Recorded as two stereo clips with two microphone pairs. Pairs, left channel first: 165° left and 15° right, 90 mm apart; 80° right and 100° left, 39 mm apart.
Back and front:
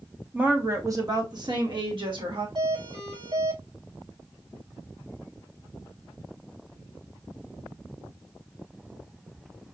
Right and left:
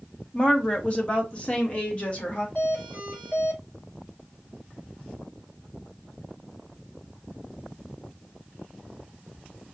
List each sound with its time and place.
0.3 s a woman speaking: 70° right, 0.8 m; by 2.5 s 25° right, 1.9 m
2.5 s a doorbell: 30° right, 2.5 m